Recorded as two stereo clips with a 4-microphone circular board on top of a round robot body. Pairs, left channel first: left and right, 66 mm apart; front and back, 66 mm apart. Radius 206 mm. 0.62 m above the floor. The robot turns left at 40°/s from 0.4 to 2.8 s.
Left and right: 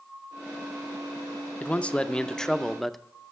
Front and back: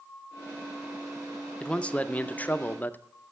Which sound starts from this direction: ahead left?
A man speaking, at 1.6 s.